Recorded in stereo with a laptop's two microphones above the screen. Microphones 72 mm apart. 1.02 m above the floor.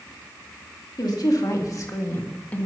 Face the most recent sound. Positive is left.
turn(degrees=20)  # may be behind; listen again after turning